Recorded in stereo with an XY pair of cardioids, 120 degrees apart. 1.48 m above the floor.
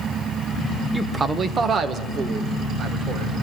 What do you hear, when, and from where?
0.9 s a man speaking: 15° right, 1.2 m; by 3.3 s 65° right, 3 m